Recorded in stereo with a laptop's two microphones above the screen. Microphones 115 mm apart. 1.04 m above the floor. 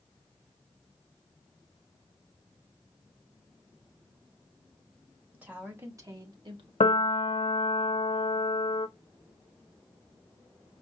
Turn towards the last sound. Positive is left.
turn(degrees=75)  # may be behind; listen again after turning